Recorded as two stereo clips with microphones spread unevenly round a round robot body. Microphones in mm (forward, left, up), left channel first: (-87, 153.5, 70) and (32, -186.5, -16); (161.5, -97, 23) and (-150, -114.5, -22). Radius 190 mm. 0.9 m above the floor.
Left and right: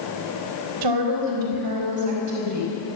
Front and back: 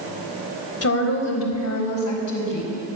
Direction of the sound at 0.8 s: 40° right.